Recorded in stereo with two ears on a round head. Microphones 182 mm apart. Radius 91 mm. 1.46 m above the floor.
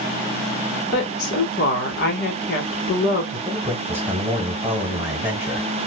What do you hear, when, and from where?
0.9 s a woman speaking: 55° left (ahead or behind), 1.3 m
3.3 s a man speaking: 10° right (ahead or behind), 1.3 m